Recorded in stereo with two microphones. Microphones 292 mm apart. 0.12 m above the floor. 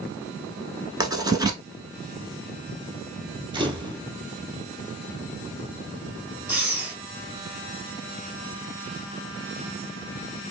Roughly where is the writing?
Centre.